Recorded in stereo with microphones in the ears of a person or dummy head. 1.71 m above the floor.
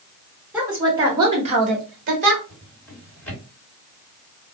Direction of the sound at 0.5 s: 5° right (ahead or behind).